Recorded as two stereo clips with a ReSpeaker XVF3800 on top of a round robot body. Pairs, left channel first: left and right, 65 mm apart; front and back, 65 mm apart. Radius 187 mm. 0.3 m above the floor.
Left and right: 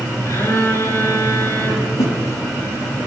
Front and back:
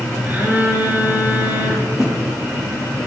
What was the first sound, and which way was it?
A phone buzzing, 120° left.